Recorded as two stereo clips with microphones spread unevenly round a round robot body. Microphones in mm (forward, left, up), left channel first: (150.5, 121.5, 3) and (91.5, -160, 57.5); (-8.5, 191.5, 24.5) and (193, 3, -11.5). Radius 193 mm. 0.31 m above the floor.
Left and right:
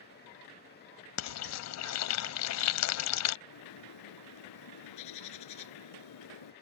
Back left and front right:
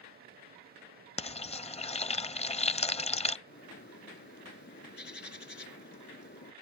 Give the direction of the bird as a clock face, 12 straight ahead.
9 o'clock.